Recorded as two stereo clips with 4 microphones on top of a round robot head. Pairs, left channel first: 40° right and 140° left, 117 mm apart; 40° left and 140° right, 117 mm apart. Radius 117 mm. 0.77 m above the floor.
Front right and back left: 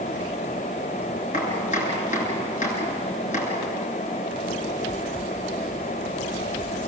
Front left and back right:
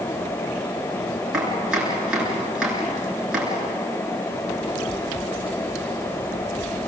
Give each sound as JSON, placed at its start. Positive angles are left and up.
{"t": 1.3, "sound": "chopping", "azimuth_deg": -55, "distance_m": 8.5}